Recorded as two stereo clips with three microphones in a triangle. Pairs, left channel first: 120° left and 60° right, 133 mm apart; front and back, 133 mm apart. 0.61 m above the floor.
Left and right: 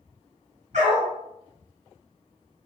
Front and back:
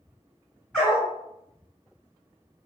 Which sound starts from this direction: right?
A dog barking, at 0.7 s.